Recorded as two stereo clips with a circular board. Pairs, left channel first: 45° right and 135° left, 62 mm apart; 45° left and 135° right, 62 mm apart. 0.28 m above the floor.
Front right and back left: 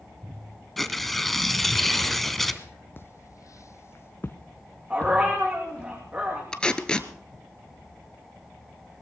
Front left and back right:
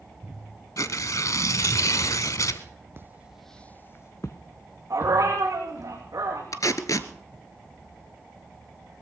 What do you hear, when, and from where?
0.8 s tearing paper: 45° left, 0.9 m
3.0 s footsteps: 90° right, 0.7 m; by 5.9 s 30° left, 3 m
4.9 s a dog barking: 160° right, 5.5 m
6.5 s tape being pulled: 30° left, 0.9 m